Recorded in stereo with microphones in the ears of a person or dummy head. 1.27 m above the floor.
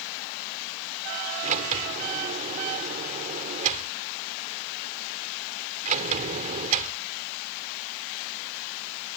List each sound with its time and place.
1.4 s a sliding door: 40° right (ahead or behind)